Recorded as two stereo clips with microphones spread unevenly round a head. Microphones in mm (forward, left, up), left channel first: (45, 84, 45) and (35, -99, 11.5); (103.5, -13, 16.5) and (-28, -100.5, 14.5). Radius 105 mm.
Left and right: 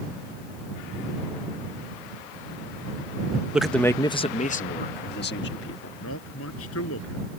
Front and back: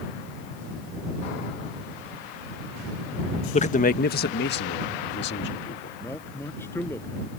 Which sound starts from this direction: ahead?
A man speaking, at 3.5 s.